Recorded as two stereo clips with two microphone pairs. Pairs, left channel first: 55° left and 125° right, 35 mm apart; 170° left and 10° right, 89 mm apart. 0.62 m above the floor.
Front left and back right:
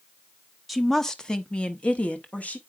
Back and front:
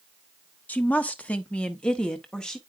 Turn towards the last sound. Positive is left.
turn(degrees=90)